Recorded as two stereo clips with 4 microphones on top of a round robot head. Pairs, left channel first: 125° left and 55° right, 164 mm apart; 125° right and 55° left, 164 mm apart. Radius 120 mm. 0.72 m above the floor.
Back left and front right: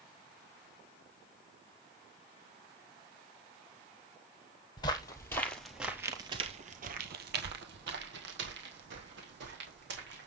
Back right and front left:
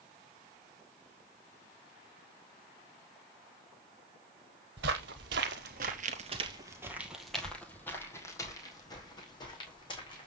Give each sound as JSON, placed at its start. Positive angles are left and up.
{"t": 4.8, "sound": "footsteps", "azimuth_deg": 60, "distance_m": 1.6}